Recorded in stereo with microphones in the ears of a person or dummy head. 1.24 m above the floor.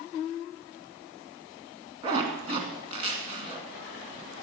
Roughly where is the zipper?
Right.